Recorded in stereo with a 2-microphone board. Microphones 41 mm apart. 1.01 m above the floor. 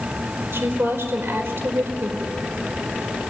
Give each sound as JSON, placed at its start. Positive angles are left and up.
{"t": 0.5, "sound": "a woman speaking", "side_deg": -80, "distance_m": 4.5}